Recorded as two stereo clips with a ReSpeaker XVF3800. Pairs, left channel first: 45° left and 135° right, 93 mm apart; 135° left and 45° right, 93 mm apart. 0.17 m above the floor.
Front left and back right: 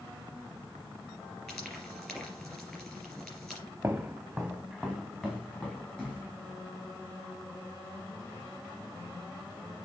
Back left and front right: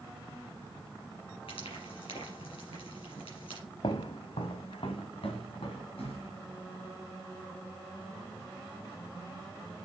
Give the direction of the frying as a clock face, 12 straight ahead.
8 o'clock.